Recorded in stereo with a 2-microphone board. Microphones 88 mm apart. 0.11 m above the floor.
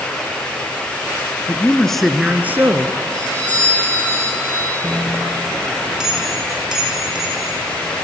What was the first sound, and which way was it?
A man speaking, 20° left (ahead or behind).